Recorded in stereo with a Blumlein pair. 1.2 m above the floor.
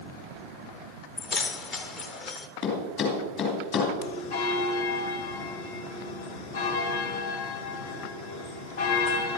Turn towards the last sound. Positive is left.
turn(degrees=50)